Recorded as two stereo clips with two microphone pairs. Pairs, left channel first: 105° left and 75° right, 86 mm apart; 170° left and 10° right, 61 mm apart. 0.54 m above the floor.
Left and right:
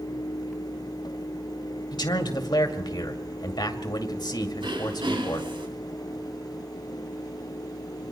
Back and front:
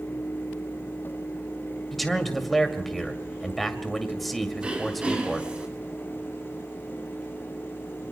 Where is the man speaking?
80° left, 2 m.